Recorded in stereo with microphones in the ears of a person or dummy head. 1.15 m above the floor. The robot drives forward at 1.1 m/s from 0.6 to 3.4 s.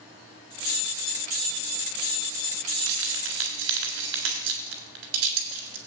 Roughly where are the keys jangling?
Right.